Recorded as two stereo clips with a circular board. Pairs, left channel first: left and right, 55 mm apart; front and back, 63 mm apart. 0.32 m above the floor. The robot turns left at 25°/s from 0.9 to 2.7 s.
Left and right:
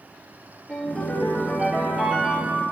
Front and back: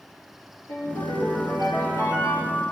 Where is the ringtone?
5° left, 4.5 m; by 2.6 s 40° right, 4.5 m.